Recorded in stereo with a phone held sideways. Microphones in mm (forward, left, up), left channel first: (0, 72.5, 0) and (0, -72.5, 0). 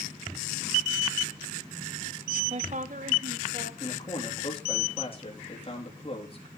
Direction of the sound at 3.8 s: 40° left (ahead or behind).